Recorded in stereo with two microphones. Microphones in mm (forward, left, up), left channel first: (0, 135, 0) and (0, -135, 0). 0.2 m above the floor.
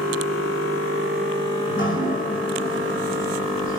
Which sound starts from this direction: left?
Dripping, at 1.7 s.